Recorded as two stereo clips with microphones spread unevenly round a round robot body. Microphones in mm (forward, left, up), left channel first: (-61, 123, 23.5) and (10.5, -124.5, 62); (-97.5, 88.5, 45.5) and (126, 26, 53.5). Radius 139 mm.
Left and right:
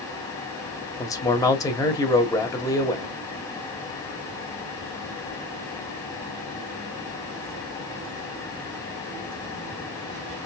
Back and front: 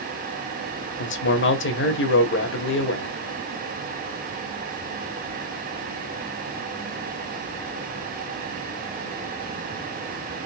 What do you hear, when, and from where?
1.0 s a man speaking: 175° left, 1.7 m